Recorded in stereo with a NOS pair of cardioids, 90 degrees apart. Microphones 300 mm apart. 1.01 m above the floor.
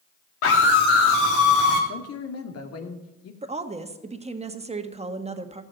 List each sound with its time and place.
0.4 s a scream: 50° left, 2 m; by 1.8 s 70° left, 3 m
1.9 s a man speaking: 55° left, 2.5 m
3.4 s a woman speaking: 20° right, 1.6 m